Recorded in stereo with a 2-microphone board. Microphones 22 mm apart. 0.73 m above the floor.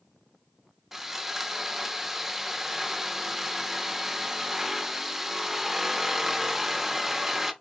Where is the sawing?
15° right (ahead or behind), 0.6 m.